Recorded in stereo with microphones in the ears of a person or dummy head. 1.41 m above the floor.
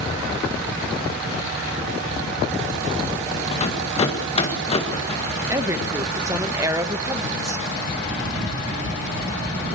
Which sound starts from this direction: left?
A rattle, at 3.5 s.